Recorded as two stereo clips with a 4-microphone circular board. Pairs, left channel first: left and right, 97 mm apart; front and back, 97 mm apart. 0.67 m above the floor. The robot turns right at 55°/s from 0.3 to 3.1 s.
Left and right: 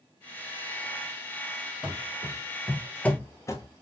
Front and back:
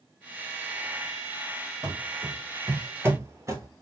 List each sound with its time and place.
1.8 s running footsteps: 160° right, 0.9 m; by 3.7 s 130° left, 0.9 m